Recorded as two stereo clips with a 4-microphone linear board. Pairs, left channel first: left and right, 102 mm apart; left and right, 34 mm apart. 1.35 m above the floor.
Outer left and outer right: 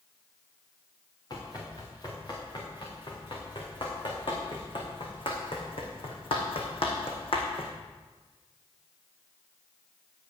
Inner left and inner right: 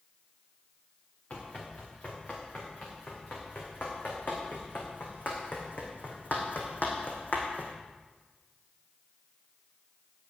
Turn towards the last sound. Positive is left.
turn(degrees=60)  # may be behind; listen again after turning